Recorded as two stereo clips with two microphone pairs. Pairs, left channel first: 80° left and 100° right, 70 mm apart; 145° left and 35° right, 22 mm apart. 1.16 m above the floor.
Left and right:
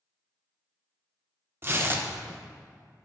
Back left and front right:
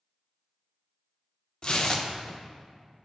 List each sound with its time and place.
1.6 s tearing paper: 155° right, 0.7 m